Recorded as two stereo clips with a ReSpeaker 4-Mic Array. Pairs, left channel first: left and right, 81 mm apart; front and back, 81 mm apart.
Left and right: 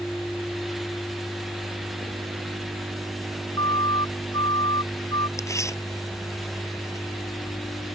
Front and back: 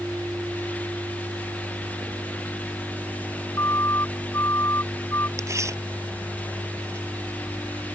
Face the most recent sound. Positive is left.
turn(degrees=135)